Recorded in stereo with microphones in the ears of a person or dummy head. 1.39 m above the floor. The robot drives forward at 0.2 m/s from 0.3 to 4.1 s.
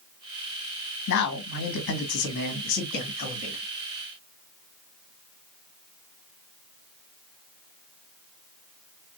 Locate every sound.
1.1 s a man speaking: 70° left (ahead or behind), 1.2 m; by 3.6 s 50° left (ahead or behind), 1.4 m